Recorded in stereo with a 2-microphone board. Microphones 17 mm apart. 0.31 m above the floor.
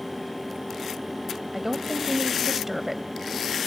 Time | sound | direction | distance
1.5 | a woman speaking | 20° right (ahead or behind) | 1.4 m